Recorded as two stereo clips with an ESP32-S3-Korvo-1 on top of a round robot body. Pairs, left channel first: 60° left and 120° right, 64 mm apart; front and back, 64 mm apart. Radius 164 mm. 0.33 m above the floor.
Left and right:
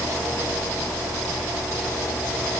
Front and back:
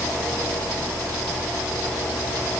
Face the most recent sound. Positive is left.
No sound to turn to.